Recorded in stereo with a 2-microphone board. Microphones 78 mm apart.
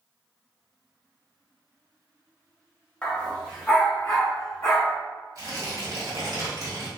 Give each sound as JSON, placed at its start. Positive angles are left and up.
{"t": 3.0, "sound": "a dog barking", "side_deg": 15, "distance_m": 1.0}
{"t": 5.3, "sound": "tearing paper", "side_deg": -50, "distance_m": 1.7}